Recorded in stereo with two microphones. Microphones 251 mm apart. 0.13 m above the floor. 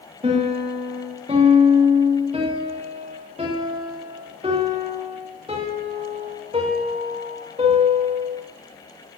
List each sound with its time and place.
0.2 s a piano: 25° right (ahead or behind), 5 m